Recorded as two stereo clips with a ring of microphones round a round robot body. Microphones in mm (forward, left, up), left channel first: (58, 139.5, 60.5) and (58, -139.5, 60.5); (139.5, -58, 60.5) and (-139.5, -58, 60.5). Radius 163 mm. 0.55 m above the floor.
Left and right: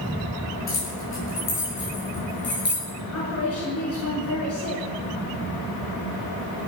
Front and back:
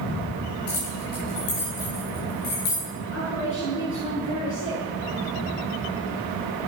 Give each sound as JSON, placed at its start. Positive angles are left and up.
{"t": 0.7, "sound": "keys jangling", "azimuth_deg": 45, "distance_m": 9.5}
{"t": 3.1, "sound": "a woman speaking", "azimuth_deg": 55, "distance_m": 7.0}